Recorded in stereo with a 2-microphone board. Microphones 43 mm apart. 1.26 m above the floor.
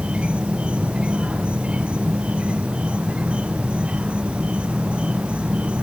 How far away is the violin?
No violin in this recording.